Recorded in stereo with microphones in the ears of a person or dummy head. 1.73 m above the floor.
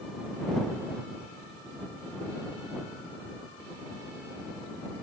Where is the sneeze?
I don't hear a sneeze.